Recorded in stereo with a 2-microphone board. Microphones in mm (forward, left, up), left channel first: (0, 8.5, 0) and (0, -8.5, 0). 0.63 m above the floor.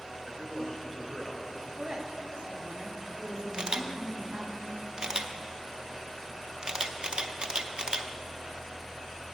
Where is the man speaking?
35° left (ahead or behind), 1.7 m.